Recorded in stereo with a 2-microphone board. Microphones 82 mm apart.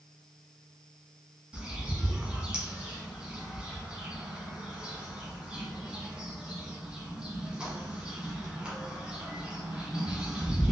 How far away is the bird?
About 1.0 m.